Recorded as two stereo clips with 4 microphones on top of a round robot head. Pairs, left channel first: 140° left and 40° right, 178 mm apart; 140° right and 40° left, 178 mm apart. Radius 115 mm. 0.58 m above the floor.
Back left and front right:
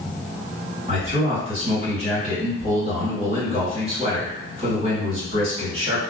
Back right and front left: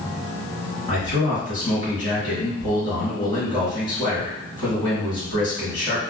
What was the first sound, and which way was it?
A man speaking, 85° right.